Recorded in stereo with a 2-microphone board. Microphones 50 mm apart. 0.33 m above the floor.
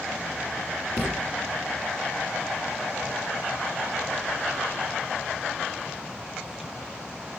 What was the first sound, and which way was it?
A thud, 50° left (ahead or behind).